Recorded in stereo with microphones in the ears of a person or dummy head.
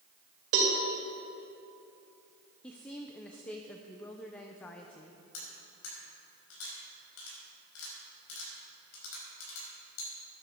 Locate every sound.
0.5 s a cowbell: 65° right (ahead or behind), 2.5 m
2.6 s a woman speaking: 5° left (ahead or behind), 0.6 m
5.3 s cutlery clinking: 75° left (ahead or behind), 5.5 m